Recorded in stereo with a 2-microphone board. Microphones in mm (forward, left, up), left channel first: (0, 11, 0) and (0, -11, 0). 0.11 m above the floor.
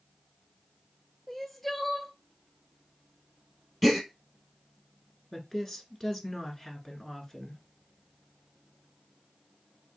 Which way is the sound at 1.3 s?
10° left (ahead or behind).